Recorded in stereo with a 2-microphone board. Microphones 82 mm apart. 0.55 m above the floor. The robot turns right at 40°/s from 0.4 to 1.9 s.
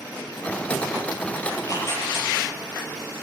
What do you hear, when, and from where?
1.5 s tearing paper: 50° left (ahead or behind), 4 m; by 2.3 s 35° left (ahead or behind), 4 m